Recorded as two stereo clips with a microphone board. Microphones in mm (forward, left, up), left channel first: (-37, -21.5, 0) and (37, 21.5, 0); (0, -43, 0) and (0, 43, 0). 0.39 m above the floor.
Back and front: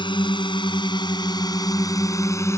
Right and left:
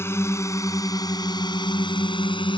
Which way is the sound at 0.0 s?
150° right.